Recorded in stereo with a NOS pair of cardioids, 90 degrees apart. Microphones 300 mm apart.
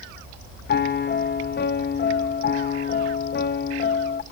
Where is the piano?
35° left, 1.1 m.